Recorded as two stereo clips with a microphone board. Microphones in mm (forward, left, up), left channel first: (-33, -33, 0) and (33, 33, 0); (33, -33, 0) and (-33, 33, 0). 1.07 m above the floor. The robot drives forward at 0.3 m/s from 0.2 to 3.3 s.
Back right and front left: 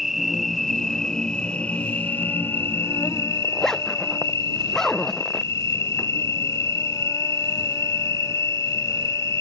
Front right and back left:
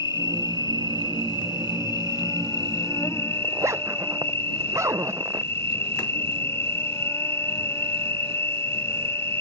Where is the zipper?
145° left.